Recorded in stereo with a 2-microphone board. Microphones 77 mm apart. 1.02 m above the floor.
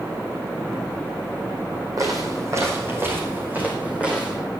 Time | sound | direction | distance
2.0 | footsteps | 50° right (ahead or behind) | 3 m